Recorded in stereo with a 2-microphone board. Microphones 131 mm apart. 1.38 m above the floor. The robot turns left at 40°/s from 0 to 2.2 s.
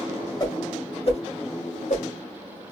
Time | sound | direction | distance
0.4 | a whoosh | 30° left (ahead or behind) | 2 m